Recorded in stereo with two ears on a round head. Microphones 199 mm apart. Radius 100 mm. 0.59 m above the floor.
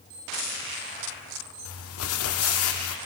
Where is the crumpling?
70° left (ahead or behind), 0.6 m.